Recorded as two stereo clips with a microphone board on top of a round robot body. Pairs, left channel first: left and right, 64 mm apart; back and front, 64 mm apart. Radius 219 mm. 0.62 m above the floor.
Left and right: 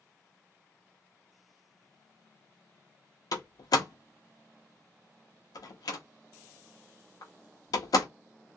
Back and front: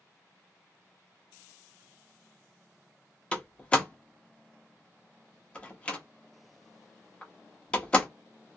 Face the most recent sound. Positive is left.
turn(degrees=110)